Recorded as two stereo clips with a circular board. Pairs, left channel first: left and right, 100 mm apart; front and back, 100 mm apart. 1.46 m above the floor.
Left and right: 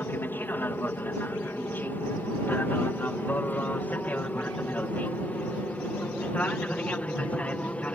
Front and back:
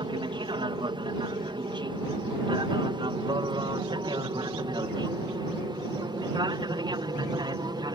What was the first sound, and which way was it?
An aircraft, 155° left.